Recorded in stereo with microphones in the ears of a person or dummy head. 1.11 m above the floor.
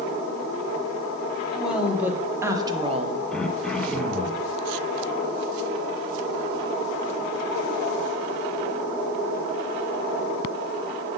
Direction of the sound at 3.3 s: Centre (ahead or behind).